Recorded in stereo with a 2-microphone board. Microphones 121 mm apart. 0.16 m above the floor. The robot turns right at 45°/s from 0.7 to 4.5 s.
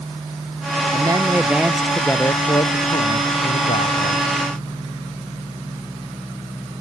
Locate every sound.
0.9 s a man speaking: 35° right; by 4.3 s 115° left